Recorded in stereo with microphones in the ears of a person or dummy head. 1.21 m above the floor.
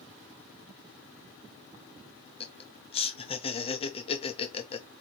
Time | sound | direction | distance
2.4 | laughter | 25° left (ahead or behind) | 0.7 m